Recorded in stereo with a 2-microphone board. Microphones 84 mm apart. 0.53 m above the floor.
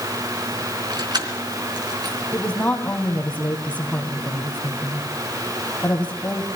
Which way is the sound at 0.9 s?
55° right (ahead or behind).